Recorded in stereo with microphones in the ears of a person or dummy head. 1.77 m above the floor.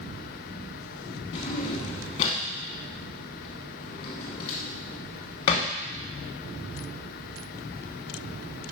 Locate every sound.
1.3 s a drawer: 30° left (ahead or behind), 1.1 m